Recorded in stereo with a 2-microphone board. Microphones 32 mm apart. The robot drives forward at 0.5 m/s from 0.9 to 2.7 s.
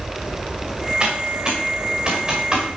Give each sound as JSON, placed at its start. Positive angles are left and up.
{"t": 1.0, "sound": "typing on a keyboard", "side_deg": -30, "distance_m": 5.5}